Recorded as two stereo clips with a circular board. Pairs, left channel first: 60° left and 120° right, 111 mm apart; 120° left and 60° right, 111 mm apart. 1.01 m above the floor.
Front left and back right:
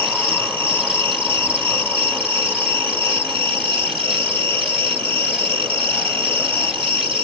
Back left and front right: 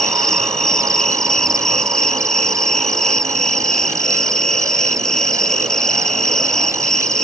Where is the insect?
155° right.